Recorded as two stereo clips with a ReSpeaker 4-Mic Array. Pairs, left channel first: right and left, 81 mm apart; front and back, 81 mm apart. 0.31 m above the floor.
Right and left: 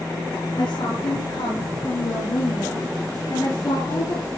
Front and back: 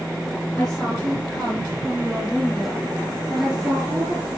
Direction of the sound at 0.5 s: 80° right.